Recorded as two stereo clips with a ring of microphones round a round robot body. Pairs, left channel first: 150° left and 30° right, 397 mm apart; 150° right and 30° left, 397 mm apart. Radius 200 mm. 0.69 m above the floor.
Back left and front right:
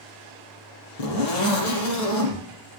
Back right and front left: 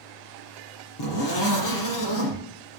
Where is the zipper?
165° left, 6 m.